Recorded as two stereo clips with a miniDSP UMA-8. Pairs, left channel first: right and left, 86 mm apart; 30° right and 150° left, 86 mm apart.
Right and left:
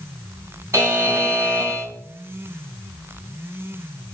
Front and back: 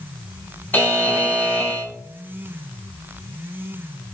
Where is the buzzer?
35° left, 4 m.